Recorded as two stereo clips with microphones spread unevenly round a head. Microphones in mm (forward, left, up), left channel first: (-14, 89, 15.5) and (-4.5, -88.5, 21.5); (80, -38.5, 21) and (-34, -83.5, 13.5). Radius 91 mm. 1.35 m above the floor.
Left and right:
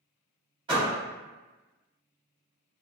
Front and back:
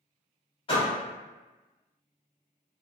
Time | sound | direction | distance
0.7 | a door slam | 20° right | 1.4 m